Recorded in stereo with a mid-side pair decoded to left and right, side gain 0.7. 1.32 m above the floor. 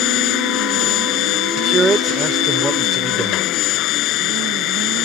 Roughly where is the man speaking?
Ahead.